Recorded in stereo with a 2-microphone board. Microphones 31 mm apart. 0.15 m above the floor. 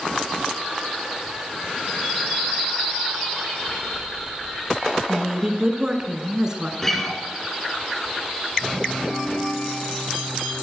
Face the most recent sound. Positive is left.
turn(degrees=10)  # may be behind; listen again after turning